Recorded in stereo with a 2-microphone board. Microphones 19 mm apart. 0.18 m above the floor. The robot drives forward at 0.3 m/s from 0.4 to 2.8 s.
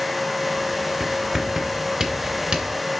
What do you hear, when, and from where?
1.0 s writing: 40° right (ahead or behind), 2 m; by 2.8 s 45° right (ahead or behind), 1.9 m